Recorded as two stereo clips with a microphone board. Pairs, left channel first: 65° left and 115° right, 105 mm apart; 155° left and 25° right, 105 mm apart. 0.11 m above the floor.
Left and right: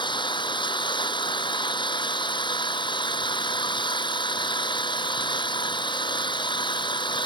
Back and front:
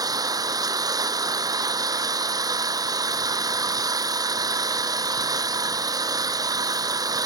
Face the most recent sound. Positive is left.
turn(degrees=30)